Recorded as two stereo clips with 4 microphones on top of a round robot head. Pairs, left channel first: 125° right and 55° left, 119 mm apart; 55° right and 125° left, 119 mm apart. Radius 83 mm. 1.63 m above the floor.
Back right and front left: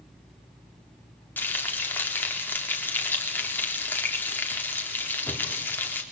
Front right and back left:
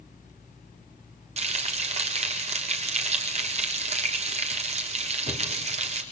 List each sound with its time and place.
1.4 s frying: 160° left, 4 m